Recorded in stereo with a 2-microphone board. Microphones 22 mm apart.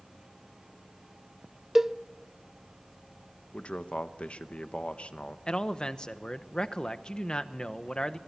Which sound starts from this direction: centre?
A cowbell, at 1.8 s.